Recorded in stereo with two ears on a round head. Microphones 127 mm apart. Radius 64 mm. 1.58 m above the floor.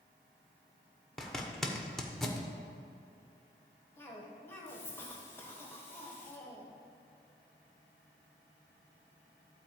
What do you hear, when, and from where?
1.2 s a zipper: 5° left (ahead or behind), 1.0 m
4.0 s a cough: 15° left (ahead or behind), 1.3 m